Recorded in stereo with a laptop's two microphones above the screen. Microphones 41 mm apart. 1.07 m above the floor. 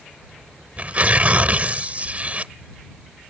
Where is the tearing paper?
35° right (ahead or behind).